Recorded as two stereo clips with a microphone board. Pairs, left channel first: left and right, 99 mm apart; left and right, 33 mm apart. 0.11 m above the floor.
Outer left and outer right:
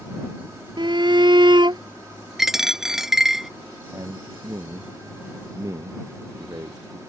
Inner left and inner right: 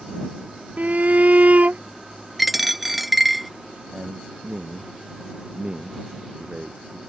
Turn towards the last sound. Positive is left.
turn(degrees=-40)  # may be behind; listen again after turning